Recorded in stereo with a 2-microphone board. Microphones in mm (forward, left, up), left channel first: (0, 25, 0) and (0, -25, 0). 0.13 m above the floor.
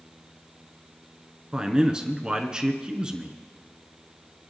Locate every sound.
1.5 s a man speaking: 20° right (ahead or behind), 1.2 m